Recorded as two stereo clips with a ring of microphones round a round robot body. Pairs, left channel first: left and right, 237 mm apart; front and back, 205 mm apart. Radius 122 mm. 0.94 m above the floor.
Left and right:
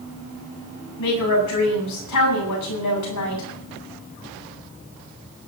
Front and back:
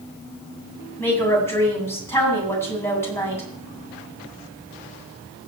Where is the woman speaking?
80° left, 9 m.